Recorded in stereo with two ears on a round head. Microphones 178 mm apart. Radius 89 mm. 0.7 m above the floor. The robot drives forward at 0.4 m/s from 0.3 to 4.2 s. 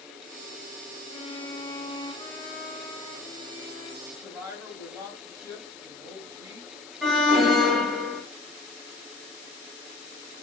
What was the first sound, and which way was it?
A violin, 30° left (ahead or behind).